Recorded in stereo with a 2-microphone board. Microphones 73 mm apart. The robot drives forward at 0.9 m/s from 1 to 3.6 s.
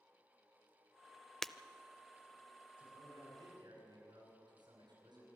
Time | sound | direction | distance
1.4 | breaking glass | 5° left (ahead or behind) | 0.5 m
2.8 | a man speaking | 85° right | 9.5 m